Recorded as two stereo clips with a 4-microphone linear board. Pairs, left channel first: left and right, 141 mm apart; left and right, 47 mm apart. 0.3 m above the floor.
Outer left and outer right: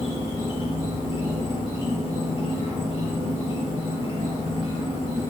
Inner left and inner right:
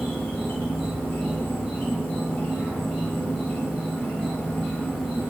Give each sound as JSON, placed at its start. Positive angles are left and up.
{"t": 0.0, "sound": "an insect", "side_deg": 30, "distance_m": 6.5}